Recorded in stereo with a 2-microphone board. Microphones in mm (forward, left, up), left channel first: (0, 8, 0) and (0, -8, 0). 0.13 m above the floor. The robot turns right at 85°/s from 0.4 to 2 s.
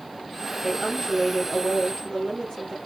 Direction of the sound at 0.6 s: 15° right.